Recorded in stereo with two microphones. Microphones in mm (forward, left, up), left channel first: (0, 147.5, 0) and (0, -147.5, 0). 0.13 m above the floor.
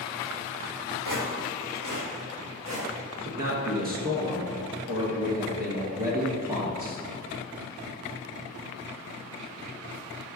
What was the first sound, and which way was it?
Footsteps, 85° right.